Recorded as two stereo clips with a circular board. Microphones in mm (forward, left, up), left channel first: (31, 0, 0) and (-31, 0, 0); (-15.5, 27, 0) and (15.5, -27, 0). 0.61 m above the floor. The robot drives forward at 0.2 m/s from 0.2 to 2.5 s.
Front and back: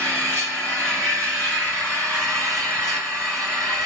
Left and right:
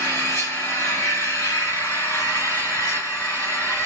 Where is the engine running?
135° left, 2.5 m; by 3.9 s 145° left, 3 m.